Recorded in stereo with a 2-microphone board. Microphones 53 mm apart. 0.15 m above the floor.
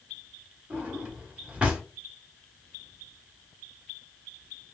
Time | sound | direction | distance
0.7 | a drawer | 20° right (ahead or behind) | 1.1 m